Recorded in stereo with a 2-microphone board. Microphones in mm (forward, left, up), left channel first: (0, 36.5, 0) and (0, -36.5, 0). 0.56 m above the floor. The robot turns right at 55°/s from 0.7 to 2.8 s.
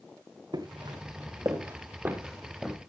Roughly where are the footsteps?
Right.